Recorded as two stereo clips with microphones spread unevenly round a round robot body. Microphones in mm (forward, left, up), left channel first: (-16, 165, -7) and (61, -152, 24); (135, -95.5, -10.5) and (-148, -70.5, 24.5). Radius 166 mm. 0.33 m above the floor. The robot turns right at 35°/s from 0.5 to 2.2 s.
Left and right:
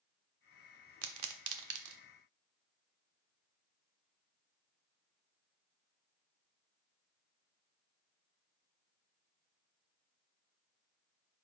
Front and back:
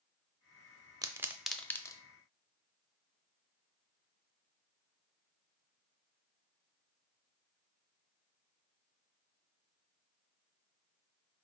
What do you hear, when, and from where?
1.0 s a pop: 105° right, 0.6 m; by 2.0 s 70° right, 0.6 m